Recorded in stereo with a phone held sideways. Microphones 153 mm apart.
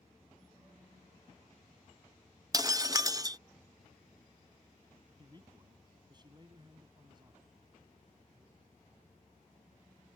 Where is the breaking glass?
25° right (ahead or behind).